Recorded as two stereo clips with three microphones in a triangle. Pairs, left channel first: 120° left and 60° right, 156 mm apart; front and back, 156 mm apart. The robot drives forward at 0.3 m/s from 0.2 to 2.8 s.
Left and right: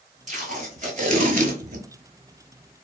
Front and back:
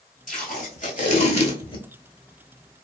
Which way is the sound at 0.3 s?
25° right.